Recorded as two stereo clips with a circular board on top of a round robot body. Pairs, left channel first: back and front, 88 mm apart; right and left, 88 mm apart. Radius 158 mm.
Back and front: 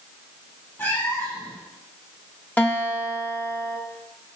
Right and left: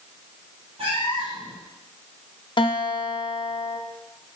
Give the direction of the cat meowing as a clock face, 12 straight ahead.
8 o'clock.